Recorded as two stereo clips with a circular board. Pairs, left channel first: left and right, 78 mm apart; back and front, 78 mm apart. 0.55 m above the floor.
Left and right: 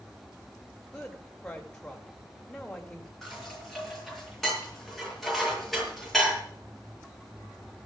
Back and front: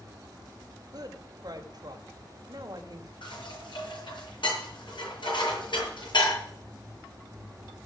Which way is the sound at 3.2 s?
175° left.